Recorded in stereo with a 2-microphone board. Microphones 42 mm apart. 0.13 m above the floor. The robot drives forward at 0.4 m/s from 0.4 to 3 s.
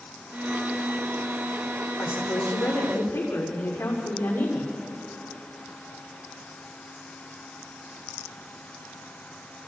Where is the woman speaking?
80° left, 7.5 m.